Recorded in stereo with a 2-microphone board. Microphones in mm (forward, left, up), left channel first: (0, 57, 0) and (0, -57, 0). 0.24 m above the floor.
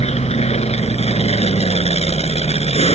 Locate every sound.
0.0 s an aircraft: 65° left (ahead or behind)